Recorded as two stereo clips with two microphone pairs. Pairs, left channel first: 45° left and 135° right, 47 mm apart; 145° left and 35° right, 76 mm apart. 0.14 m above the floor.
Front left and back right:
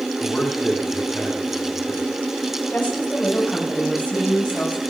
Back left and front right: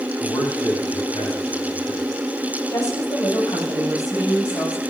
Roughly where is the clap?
No clap in this recording.